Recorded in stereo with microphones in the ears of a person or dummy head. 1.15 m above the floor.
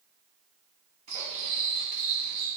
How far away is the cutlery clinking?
About 0.7 m.